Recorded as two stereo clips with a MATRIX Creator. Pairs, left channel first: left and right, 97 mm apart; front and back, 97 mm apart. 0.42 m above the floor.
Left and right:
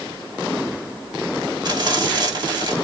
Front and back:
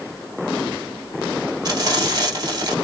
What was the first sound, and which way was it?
Frying, 135° right.